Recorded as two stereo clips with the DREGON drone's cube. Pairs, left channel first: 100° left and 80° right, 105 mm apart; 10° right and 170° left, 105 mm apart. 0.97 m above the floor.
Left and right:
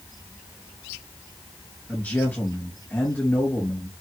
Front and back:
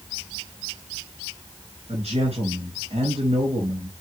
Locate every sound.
1.9 s a man speaking: straight behind, 5 m